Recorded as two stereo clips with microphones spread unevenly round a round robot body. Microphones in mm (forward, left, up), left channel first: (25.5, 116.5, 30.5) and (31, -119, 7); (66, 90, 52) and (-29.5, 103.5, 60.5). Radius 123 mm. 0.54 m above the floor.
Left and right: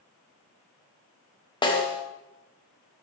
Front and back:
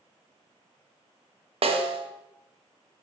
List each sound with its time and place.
1.6 s a snare drum: 165° left, 3 m